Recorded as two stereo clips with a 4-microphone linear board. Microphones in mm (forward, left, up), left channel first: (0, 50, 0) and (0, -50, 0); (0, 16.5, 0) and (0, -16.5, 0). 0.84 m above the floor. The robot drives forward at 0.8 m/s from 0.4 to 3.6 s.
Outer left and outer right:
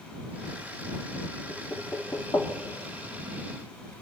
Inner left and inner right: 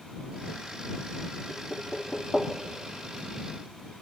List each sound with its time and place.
1.5 s knocking: 25° left (ahead or behind), 2.5 m; by 2.5 s 35° left (ahead or behind), 1.6 m